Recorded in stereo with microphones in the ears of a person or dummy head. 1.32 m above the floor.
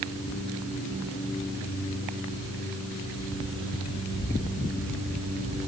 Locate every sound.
Only background noise.